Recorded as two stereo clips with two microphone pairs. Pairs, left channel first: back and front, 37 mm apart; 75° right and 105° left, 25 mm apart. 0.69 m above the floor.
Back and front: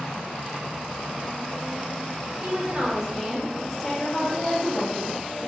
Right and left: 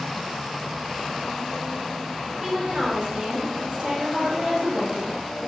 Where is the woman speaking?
50° left, 1.1 m; by 5.5 s 170° left, 1.1 m.